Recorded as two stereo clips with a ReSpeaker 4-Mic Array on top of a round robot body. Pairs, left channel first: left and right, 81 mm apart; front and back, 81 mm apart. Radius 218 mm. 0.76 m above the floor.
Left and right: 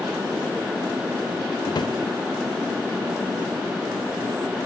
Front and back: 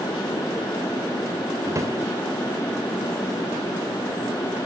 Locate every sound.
1.6 s a drawer: 125° left, 1.3 m